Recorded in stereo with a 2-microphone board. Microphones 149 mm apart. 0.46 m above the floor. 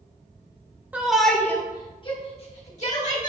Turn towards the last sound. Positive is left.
turn(degrees=55)  # may be behind; listen again after turning